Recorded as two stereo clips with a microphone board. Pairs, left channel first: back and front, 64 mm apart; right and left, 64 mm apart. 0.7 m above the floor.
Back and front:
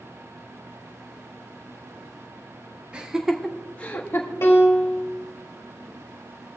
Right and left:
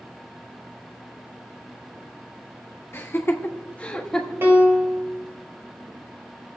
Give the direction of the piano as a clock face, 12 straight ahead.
7 o'clock.